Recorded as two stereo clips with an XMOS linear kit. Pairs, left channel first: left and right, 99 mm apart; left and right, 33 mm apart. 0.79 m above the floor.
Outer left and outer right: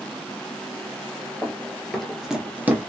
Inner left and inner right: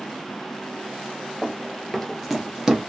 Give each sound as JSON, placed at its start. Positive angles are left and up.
{"t": 1.4, "sound": "running footsteps", "side_deg": 10, "distance_m": 1.2}